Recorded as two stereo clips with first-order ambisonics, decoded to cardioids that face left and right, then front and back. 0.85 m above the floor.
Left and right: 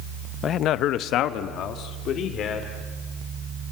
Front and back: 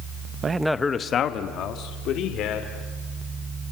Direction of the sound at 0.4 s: 130° left.